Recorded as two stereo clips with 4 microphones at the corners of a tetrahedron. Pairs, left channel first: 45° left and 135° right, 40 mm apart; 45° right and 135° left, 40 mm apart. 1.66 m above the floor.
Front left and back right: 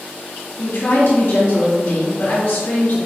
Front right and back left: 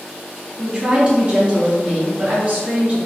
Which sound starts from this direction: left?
A woman speaking, at 0.6 s.